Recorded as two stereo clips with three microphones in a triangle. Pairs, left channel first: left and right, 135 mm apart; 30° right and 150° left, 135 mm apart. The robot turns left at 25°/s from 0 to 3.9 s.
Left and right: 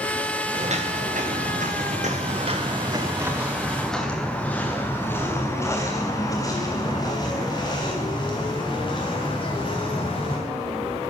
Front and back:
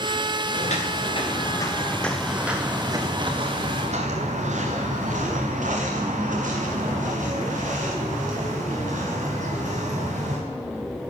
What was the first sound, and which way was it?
Footsteps, 55° right.